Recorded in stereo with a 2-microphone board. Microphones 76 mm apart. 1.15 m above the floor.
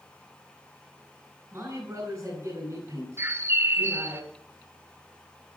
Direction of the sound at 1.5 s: 35° right (ahead or behind).